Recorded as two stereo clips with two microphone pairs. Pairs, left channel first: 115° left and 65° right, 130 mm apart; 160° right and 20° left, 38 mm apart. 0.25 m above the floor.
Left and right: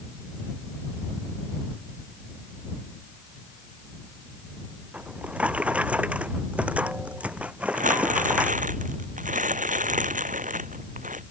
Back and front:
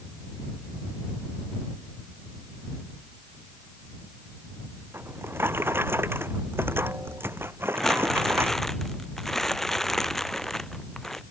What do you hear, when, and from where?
4.9 s a drawer: 15° left
7.8 s crumpling: 80° right